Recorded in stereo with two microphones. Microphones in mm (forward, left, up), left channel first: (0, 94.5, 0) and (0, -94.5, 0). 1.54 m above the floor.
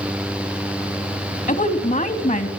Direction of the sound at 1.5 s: 45° left (ahead or behind).